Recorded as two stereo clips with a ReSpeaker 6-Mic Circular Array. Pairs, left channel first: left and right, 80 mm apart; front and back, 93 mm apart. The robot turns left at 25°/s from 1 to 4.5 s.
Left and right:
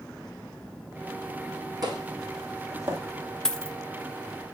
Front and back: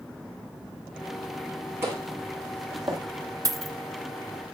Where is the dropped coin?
165° left, 0.5 m; by 3.8 s 160° left, 0.5 m.